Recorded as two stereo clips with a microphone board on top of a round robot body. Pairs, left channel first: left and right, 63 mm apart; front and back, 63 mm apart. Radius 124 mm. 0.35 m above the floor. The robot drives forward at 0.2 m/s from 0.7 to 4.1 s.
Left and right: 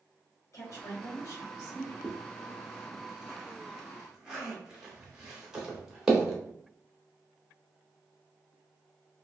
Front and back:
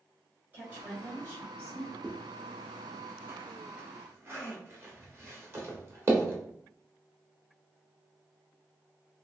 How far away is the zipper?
About 1.2 m.